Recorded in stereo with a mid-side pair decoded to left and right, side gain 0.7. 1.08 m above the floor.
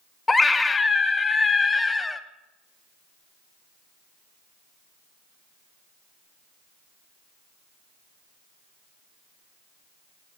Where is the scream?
15° left, 0.7 m.